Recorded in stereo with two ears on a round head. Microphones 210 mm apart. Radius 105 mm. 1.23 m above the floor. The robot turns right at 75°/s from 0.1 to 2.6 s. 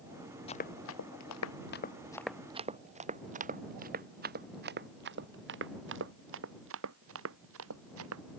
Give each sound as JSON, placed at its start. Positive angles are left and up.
{"t": 0.5, "sound": "running footsteps", "side_deg": 25}